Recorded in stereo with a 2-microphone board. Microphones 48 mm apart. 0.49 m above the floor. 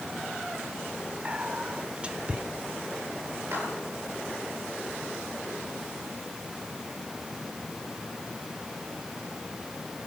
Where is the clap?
60° right (ahead or behind), 10 m.